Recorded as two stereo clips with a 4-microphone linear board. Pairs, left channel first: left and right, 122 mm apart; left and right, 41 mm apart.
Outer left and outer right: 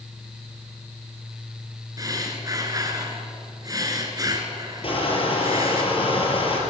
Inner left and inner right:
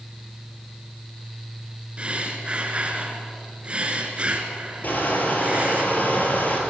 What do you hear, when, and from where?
2.0 s breathing: 30° right (ahead or behind), 2.5 m
4.8 s crushing: 50° left (ahead or behind), 4 m